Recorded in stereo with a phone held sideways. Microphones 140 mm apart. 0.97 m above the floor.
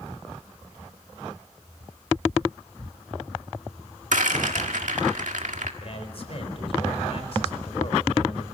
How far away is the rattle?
About 1.8 m.